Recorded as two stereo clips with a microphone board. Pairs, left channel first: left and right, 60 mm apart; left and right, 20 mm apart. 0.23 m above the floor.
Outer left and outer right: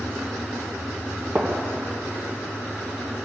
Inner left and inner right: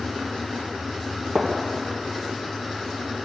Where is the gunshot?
25° right (ahead or behind), 3 m.